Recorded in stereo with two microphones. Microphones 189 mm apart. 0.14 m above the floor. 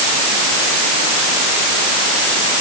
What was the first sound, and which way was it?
Only background noise.